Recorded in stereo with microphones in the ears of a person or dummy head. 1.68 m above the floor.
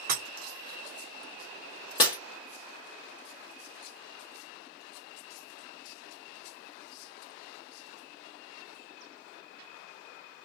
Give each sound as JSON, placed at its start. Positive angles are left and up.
{"t": 0.1, "sound": "breaking glass", "side_deg": -55, "distance_m": 3.0}
{"t": 2.0, "sound": "breaking glass", "side_deg": 20, "distance_m": 1.0}